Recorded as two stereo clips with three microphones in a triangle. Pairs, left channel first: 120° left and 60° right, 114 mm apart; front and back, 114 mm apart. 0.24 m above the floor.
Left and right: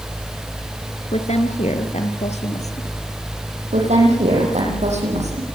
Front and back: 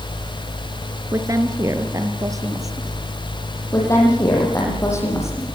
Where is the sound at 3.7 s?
65° right, 10 m.